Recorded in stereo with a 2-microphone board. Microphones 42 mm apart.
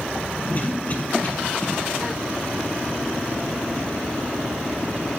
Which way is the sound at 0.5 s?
35° left (ahead or behind).